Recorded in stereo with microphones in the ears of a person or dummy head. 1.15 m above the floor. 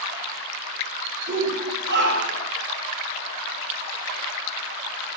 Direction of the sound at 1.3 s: 65° right (ahead or behind).